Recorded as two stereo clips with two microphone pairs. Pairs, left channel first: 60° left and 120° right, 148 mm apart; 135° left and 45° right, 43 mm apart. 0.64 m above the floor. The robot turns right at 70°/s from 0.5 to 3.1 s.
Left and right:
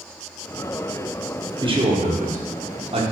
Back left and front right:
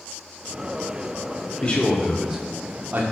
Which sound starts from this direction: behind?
A man speaking, at 1.6 s.